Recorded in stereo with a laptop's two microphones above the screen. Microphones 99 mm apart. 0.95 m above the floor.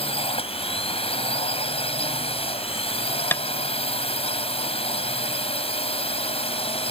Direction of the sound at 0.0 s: 75° left (ahead or behind).